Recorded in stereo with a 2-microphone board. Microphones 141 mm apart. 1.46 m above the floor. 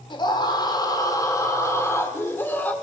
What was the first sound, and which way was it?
A scream, 35° left (ahead or behind).